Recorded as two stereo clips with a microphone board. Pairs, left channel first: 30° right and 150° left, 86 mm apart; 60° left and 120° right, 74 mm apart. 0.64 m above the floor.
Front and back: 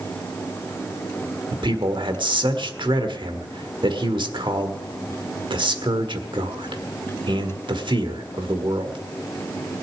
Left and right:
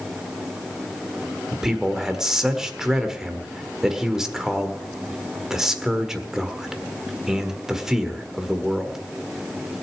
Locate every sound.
1.5 s a man speaking: 155° left, 1.6 m